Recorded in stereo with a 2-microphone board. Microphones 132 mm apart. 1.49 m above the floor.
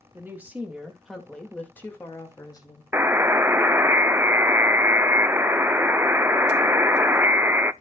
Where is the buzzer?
15° right (ahead or behind), 0.5 m.